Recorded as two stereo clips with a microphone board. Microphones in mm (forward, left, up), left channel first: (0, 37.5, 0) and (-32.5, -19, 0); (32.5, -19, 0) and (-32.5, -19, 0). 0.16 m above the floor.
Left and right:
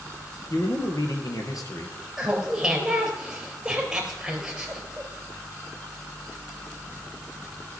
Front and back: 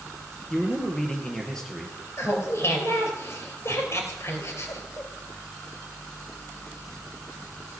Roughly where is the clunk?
No clunk in this recording.